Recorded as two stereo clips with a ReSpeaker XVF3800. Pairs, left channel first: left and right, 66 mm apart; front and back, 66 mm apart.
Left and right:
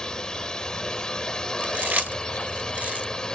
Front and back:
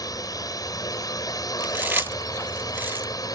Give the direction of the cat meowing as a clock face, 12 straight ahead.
No cat meowing in this recording.